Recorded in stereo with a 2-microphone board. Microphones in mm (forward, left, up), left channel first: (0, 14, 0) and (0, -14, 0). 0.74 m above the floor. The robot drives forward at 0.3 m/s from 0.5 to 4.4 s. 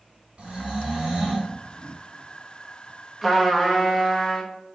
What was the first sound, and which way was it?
Snoring, 50° right (ahead or behind).